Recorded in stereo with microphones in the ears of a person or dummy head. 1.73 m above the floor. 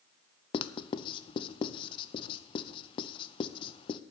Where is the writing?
30° left (ahead or behind), 0.5 m.